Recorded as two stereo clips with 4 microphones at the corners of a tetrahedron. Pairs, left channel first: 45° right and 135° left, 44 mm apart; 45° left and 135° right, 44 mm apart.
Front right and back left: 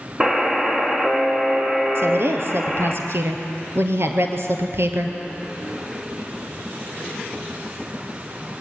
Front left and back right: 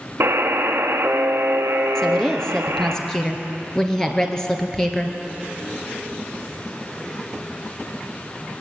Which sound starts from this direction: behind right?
A buzzer, at 0.2 s.